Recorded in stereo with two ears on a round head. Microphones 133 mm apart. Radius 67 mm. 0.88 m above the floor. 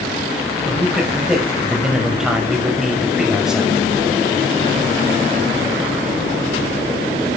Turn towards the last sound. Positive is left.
turn(degrees=-5)  # may be behind; listen again after turning